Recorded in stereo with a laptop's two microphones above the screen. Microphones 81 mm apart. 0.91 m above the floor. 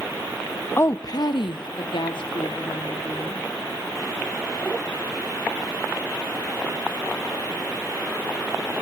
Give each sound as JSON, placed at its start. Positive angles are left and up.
{"t": 0.8, "sound": "a woman speaking", "side_deg": 30, "distance_m": 0.6}